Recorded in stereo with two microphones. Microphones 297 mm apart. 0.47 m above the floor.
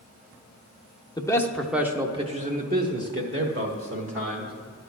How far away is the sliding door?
I don't hear a sliding door.